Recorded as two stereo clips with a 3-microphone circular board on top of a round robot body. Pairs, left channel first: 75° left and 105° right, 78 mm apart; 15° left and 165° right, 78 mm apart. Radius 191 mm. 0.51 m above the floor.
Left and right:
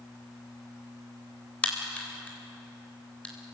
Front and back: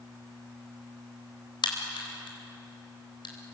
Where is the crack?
Straight ahead, 3.5 m.